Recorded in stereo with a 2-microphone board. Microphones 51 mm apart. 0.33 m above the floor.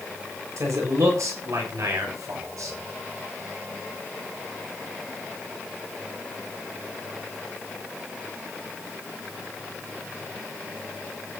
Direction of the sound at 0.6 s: 70° right (ahead or behind).